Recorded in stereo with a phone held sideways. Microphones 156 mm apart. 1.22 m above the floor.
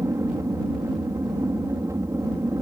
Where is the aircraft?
20° right (ahead or behind).